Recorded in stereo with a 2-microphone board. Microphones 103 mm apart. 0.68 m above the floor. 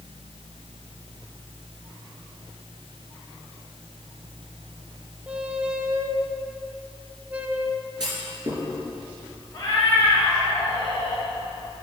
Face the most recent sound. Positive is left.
turn(degrees=30)  # may be behind; listen again after turning